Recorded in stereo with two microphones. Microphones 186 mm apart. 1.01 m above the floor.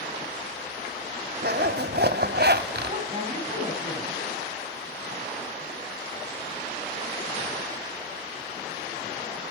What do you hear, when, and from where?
1.4 s a zipper: 60° right (ahead or behind), 1.0 m
2.9 s a woman speaking: 30° right (ahead or behind), 8 m